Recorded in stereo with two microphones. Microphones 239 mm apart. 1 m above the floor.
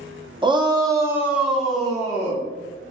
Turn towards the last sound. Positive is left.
turn(degrees=5)  # may be behind; listen again after turning